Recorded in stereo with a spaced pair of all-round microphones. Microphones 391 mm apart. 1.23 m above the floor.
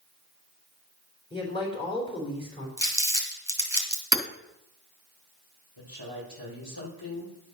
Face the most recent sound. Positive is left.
turn(degrees=65)  # may be behind; listen again after turning